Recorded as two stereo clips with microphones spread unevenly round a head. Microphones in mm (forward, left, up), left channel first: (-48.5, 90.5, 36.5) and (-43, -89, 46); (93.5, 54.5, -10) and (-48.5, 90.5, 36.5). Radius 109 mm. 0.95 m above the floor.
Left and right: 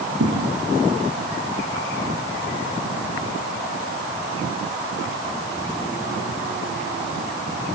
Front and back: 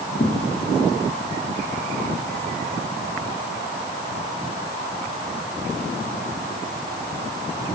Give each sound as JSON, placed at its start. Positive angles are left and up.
{"t": 0.2, "sound": "a thud", "azimuth_deg": -65, "distance_m": 4.5}